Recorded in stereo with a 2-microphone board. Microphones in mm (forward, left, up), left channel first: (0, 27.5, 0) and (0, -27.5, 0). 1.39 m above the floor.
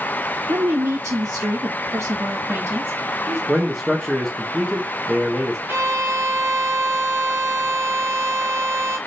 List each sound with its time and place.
0.5 s a woman speaking: 80° right, 1.1 m; by 3.4 s 35° right (ahead or behind), 2.5 m
3.5 s a man speaking: 5° left (ahead or behind), 1.1 m
5.7 s a violin: 40° right (ahead or behind), 1.3 m